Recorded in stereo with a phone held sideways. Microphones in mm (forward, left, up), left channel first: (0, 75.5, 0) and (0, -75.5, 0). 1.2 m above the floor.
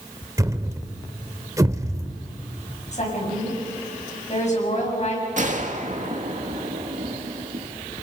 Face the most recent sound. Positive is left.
turn(degrees=-55)  # may be behind; listen again after turning